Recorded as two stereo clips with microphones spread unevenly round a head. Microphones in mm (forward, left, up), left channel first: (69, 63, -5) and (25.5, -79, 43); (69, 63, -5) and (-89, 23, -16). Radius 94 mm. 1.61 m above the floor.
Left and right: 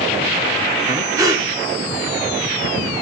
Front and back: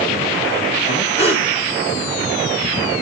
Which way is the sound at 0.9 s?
45° right.